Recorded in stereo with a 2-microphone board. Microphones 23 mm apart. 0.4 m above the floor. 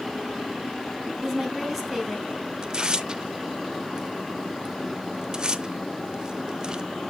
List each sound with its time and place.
1.2 s a woman speaking: 5° right (ahead or behind), 3.5 m
2.6 s tearing paper: 35° right (ahead or behind), 0.6 m